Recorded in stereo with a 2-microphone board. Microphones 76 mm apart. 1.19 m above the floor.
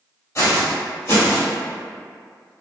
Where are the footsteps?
40° left (ahead or behind), 1.6 m; by 1.5 s 30° left (ahead or behind), 1.4 m.